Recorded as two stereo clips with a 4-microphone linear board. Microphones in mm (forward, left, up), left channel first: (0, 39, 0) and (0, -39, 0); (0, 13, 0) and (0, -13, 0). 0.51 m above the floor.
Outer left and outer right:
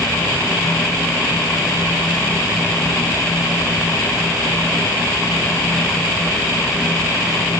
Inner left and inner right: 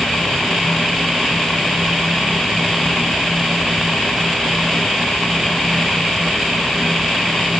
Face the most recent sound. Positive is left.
No sound to turn to.